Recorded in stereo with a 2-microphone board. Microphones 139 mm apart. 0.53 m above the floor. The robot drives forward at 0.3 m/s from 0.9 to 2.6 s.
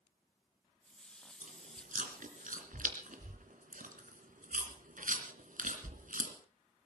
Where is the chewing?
60° right (ahead or behind), 2.5 m; by 6.3 s 70° right (ahead or behind), 2.5 m.